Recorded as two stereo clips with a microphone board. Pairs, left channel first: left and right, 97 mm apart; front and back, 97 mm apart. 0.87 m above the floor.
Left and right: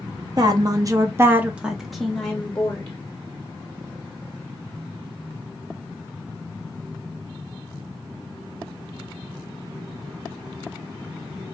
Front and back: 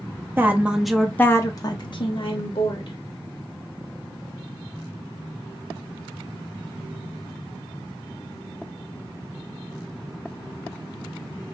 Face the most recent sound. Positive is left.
turn(degrees=15)